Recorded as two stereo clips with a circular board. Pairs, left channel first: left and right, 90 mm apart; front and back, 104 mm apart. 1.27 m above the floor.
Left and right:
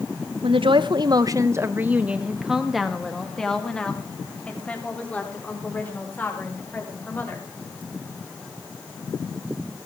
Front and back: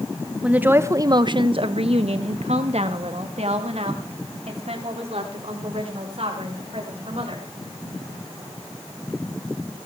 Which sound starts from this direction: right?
A woman speaking, at 0.4 s.